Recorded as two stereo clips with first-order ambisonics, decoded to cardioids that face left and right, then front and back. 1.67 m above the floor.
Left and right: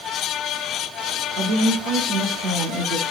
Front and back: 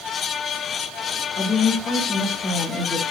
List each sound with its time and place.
1.4 s a woman speaking: 65° right, 1.4 m